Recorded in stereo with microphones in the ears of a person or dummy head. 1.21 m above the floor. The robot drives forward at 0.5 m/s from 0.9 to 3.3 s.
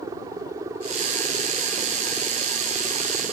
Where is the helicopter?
15° right (ahead or behind).